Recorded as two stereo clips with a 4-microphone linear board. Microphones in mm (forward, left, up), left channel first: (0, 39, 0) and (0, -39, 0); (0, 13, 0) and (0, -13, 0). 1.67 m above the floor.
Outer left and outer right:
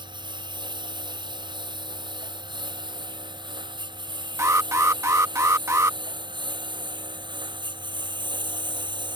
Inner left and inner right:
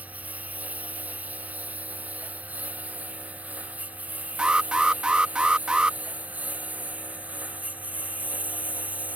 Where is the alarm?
40° right (ahead or behind).